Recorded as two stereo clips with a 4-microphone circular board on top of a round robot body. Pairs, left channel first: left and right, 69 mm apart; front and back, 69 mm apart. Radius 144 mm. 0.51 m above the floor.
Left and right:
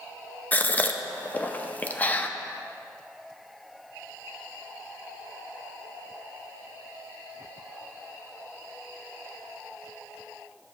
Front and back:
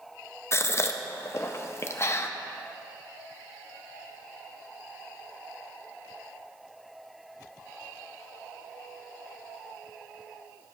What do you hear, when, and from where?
0.5 s a gasp: 30° left, 0.6 m